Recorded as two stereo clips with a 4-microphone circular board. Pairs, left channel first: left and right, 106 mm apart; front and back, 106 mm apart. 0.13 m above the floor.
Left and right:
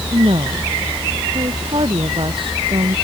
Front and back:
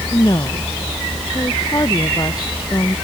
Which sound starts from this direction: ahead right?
A woman speaking, at 0.1 s.